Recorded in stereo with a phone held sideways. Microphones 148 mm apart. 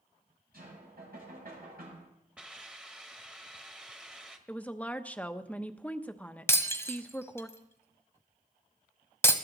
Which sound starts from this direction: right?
Knocking, at 0.5 s.